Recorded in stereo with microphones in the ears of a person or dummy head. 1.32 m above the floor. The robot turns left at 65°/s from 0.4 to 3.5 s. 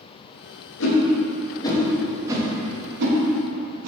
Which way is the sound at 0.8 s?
75° left (ahead or behind).